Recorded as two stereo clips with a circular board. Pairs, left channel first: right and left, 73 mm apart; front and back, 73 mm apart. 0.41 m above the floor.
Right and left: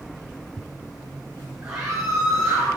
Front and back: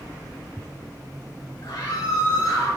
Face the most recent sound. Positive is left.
turn(degrees=40)